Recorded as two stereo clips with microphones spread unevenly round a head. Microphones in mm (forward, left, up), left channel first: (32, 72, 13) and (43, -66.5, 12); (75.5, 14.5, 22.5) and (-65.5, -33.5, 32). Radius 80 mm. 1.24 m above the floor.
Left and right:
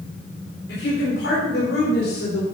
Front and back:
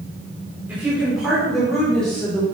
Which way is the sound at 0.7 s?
120° left.